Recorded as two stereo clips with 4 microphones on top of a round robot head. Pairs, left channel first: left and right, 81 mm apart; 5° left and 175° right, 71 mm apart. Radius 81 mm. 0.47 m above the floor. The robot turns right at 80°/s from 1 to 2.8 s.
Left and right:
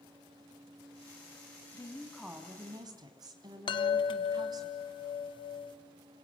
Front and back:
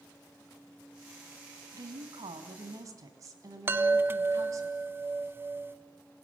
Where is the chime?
125° left, 1.2 m.